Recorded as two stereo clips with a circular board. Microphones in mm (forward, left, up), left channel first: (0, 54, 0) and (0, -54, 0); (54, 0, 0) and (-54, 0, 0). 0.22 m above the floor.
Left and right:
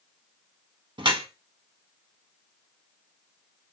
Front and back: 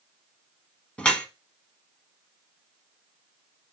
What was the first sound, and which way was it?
Dripping, 75° right.